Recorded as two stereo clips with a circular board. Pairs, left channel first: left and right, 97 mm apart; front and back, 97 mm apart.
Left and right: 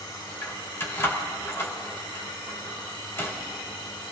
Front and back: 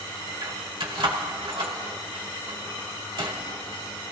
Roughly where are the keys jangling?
Behind left.